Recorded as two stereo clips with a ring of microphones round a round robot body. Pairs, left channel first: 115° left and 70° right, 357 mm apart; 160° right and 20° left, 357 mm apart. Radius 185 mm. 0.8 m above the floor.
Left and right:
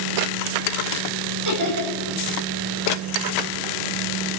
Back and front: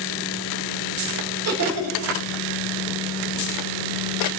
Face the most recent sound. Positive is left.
turn(degrees=-25)